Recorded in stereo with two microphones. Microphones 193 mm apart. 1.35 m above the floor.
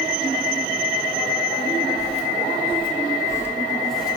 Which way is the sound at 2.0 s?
35° left (ahead or behind).